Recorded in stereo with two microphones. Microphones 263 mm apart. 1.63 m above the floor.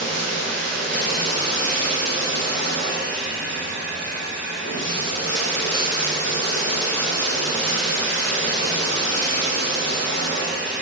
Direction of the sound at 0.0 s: 70° left (ahead or behind).